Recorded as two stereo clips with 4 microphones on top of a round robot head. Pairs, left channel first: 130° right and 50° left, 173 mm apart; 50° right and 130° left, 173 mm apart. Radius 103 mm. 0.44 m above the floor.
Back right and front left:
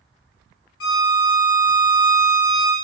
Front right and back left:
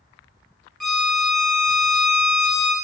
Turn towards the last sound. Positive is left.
turn(degrees=-140)